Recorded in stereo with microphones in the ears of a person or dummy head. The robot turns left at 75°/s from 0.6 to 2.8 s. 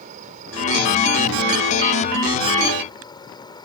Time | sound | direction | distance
0.0 | an insect | 40° right | ?